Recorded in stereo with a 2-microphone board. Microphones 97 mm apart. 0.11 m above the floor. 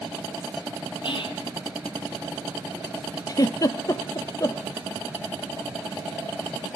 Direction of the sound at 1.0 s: 60° left (ahead or behind).